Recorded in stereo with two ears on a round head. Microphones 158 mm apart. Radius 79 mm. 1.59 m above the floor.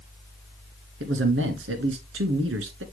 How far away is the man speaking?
About 1.7 m.